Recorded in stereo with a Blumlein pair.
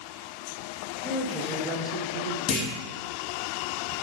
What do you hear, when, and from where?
1.0 s a woman speaking: 25° right, 1.5 m; by 2.4 s 65° right, 0.5 m
2.5 s a clunk: 30° left, 1.0 m